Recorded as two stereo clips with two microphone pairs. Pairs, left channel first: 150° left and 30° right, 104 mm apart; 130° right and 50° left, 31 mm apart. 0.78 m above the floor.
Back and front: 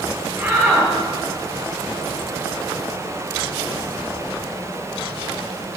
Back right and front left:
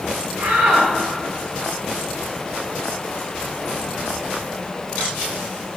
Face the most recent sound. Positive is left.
turn(degrees=40)